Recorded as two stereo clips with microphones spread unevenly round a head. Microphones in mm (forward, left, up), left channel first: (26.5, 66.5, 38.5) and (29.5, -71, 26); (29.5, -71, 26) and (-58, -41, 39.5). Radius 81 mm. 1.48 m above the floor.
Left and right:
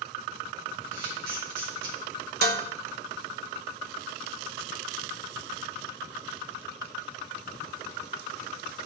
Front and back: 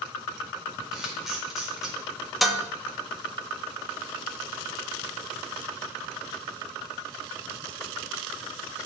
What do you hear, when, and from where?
0.9 s a camera shutter: 115° right, 4.5 m
2.4 s dishes clattering: 115° right, 1.0 m